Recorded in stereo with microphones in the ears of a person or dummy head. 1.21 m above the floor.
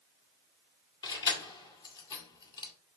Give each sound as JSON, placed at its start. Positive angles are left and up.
{"t": 1.0, "sound": "keys jangling", "side_deg": 20, "distance_m": 1.7}